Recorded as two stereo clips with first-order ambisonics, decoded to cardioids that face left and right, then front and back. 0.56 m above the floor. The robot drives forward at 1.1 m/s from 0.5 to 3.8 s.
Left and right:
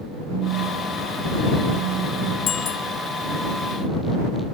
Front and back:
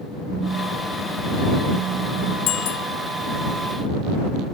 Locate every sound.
0.3 s a phone buzzing: 110° right; by 2.4 s 130° right
2.5 s a bicycle bell: 30° left; by 2.9 s 35° left